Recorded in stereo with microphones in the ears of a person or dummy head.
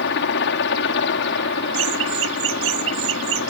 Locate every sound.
0.0 s a helicopter: 65° left (ahead or behind)
1.7 s laughter: 85° right